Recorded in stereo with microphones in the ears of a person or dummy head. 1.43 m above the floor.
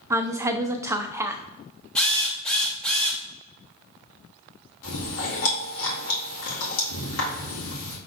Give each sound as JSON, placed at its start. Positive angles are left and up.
{"t": 0.1, "sound": "a woman speaking", "side_deg": -15, "distance_m": 0.5}
{"t": 1.9, "sound": "a drill", "side_deg": 5, "distance_m": 0.9}
{"t": 4.8, "sound": "chewing", "side_deg": 75, "distance_m": 2.0}